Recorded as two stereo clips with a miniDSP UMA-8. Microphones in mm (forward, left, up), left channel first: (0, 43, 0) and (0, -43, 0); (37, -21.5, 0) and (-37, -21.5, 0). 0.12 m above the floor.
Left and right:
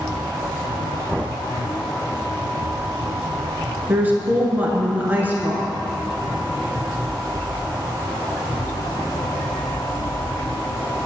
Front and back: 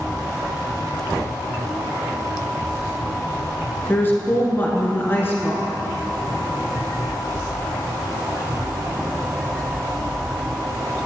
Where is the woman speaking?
40° right, 1.5 m.